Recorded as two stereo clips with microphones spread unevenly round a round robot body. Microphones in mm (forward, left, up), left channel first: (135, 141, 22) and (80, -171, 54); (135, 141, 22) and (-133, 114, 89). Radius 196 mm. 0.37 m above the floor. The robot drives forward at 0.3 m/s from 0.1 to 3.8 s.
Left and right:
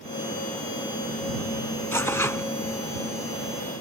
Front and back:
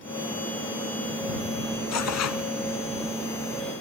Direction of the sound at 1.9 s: 5° right.